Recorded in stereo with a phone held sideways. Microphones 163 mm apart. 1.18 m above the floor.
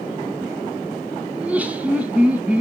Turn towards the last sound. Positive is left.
turn(degrees=-10)  # may be behind; listen again after turning